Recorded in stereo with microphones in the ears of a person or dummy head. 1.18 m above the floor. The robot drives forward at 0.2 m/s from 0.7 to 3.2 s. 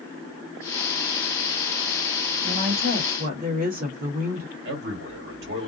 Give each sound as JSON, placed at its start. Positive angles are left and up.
{"t": 2.4, "sound": "a woman speaking", "side_deg": -50, "distance_m": 1.2}
{"t": 4.7, "sound": "a man speaking", "side_deg": -60, "distance_m": 1.6}